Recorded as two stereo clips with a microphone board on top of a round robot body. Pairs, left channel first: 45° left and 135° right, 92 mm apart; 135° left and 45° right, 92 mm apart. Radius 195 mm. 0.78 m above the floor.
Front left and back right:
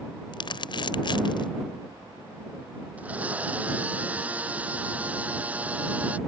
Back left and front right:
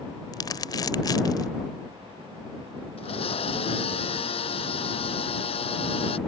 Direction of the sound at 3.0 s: 150° left.